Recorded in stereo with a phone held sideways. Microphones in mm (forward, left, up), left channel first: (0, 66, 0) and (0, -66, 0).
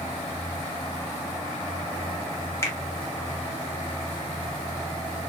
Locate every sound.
2.6 s a finger snap: 20° left (ahead or behind), 1.1 m